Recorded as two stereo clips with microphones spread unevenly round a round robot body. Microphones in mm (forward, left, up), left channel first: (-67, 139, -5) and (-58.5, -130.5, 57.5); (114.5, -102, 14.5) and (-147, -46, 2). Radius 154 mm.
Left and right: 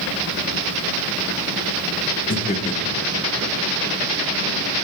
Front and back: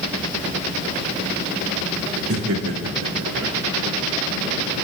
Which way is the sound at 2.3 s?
135° left.